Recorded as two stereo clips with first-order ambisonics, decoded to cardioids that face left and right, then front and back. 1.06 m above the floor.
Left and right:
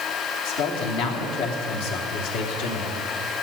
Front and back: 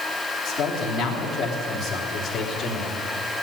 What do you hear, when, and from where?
0.5 s a man speaking: 85° left, 3 m